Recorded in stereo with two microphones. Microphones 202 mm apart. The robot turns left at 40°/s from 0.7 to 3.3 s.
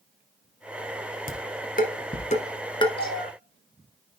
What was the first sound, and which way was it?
Dishes clattering, 50° left (ahead or behind).